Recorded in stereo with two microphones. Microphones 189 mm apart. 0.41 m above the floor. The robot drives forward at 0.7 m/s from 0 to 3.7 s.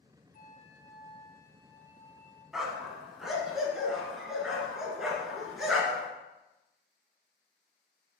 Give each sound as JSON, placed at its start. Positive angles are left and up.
{"t": 0.3, "sound": "a flute", "side_deg": 45, "distance_m": 0.5}
{"t": 2.5, "sound": "a dog barking", "side_deg": 0, "distance_m": 1.0}